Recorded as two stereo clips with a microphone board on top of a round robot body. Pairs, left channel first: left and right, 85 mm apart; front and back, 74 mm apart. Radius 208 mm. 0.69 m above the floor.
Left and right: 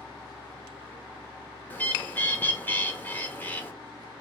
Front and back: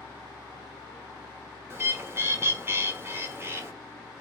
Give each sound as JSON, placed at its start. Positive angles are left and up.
{"t": 1.7, "sound": "a bird", "azimuth_deg": 150, "distance_m": 1.3}